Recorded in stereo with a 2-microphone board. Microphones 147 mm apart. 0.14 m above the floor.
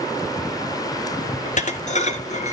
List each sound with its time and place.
1.4 s dishes clattering: 55° left (ahead or behind), 1.3 m